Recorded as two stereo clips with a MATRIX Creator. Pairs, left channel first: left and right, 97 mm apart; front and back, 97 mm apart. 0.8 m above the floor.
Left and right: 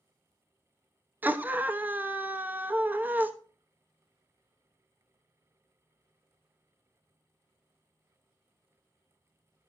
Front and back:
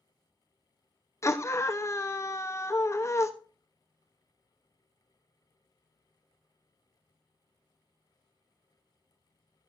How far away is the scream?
About 1.0 m.